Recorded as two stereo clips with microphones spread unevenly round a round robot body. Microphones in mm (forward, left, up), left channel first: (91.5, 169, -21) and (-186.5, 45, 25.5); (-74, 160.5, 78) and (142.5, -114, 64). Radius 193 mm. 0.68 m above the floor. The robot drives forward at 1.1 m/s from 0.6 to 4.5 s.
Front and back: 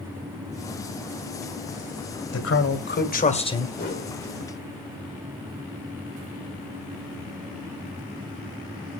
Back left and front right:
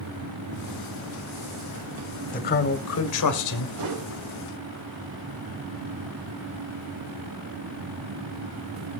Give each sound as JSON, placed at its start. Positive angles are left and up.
{"t": 2.3, "sound": "a man speaking", "azimuth_deg": 60, "distance_m": 2.5}
{"t": 3.8, "sound": "a whoosh", "azimuth_deg": -35, "distance_m": 2.0}